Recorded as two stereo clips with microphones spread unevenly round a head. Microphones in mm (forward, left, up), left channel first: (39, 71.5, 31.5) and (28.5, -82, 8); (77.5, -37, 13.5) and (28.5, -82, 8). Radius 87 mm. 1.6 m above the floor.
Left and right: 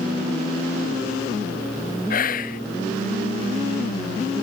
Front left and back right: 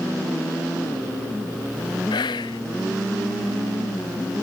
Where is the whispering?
50° left.